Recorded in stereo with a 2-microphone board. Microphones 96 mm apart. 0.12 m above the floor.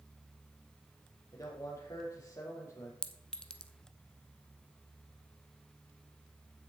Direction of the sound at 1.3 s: 35° left (ahead or behind).